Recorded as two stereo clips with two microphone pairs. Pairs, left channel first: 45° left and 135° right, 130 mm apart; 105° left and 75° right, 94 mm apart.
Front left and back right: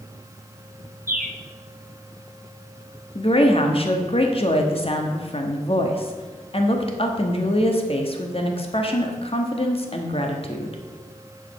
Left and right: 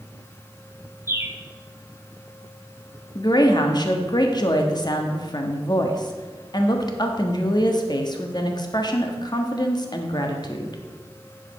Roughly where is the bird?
Behind right.